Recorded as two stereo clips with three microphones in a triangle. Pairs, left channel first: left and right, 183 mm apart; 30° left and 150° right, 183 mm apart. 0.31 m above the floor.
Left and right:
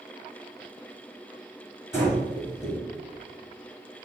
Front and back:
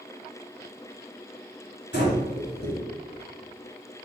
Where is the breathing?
15° left, 1.0 m.